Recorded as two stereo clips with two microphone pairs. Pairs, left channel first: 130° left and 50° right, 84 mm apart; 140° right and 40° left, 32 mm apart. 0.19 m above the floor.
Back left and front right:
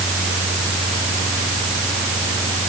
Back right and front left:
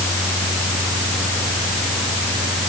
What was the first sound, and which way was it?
Only background noise.